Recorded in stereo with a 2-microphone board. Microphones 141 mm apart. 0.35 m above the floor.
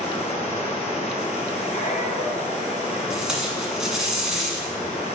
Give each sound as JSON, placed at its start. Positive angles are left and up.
{"t": 0.0, "sound": "running water", "side_deg": 50, "distance_m": 1.9}
{"t": 1.7, "sound": "a squeak", "side_deg": 55, "distance_m": 1.7}
{"t": 3.1, "sound": "tape being pulled", "side_deg": -5, "distance_m": 1.5}